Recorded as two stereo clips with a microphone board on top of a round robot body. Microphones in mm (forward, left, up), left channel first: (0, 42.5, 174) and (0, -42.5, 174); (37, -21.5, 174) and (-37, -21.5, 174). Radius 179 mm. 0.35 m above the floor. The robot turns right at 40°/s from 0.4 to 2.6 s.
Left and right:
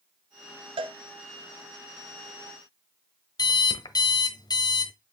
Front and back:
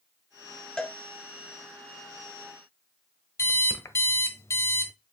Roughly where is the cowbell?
Right.